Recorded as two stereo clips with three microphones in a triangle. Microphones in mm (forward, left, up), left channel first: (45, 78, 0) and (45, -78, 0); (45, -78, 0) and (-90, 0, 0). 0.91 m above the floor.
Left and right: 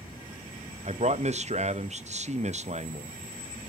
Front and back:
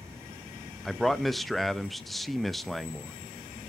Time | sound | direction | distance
0.8 | a man speaking | 120° right | 0.7 m